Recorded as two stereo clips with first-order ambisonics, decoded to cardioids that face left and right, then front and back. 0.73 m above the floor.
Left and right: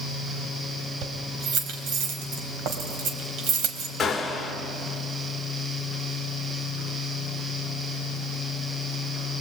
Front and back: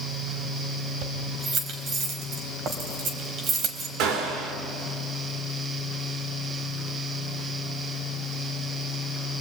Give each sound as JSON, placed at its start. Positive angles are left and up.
{"t": 1.0, "sound": "keys jangling", "azimuth_deg": -130, "distance_m": 3.0}
{"t": 4.0, "sound": "a gunshot", "azimuth_deg": 165, "distance_m": 3.0}